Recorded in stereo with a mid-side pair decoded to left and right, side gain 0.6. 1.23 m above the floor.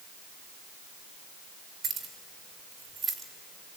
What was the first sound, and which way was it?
Keys jangling, 35° right.